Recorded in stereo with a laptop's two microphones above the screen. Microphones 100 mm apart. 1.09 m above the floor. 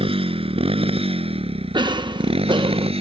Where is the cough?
50° right (ahead or behind).